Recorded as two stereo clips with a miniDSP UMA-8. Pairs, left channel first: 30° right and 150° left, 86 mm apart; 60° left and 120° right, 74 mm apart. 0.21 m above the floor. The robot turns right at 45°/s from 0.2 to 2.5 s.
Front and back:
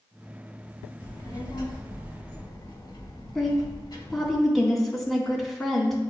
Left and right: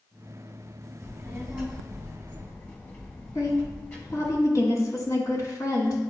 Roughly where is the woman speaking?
Ahead left.